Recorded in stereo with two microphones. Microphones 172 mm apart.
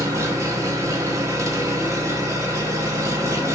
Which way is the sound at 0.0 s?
15° right (ahead or behind).